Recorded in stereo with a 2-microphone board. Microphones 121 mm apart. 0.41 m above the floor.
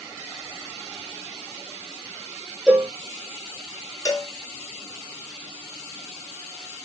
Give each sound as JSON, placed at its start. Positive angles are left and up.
{"t": 2.7, "sound": "a cowbell", "side_deg": -5, "distance_m": 1.1}
{"t": 4.0, "sound": "a cowbell", "side_deg": 30, "distance_m": 1.1}